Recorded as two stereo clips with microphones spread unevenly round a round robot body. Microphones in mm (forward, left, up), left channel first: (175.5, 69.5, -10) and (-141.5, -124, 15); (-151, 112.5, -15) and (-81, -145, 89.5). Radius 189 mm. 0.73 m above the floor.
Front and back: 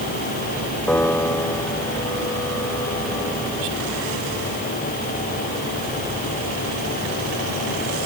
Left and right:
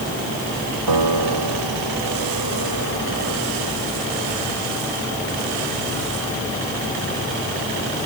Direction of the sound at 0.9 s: 55° right.